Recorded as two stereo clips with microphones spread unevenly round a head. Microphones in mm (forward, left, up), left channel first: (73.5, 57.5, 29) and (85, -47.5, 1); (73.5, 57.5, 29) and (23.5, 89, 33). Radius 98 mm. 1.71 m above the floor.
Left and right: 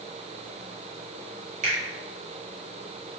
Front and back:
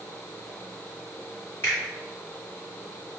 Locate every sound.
1.6 s a finger snap: 110° right, 2.5 m